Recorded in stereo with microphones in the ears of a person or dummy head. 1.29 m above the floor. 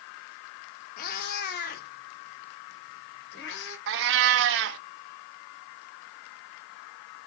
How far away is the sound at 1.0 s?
About 1.5 m.